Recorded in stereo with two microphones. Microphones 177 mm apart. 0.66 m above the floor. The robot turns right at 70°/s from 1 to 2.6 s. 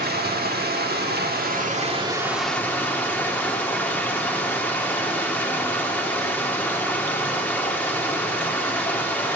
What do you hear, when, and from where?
0.0 s running water: 100° right, 1.2 m; by 9.4 s 10° left, 1.2 m